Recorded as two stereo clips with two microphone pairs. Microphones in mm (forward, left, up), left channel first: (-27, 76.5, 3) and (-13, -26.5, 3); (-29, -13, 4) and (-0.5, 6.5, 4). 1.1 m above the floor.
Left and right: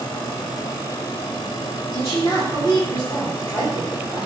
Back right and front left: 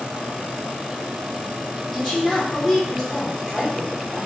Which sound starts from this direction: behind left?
A woman speaking, at 1.9 s.